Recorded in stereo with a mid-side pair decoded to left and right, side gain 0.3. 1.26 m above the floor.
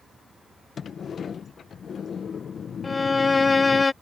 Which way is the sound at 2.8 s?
35° left.